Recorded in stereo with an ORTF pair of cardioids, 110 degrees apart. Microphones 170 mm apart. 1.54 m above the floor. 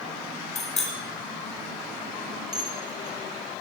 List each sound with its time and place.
0.6 s a bicycle bell: 40° left, 5.5 m
2.5 s dishes clattering: 60° left, 3 m